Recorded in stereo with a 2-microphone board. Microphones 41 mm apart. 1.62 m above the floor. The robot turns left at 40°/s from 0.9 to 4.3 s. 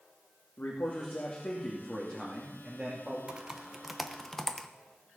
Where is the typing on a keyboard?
25° right (ahead or behind), 0.8 m; by 4.7 s 10° left (ahead or behind), 0.8 m.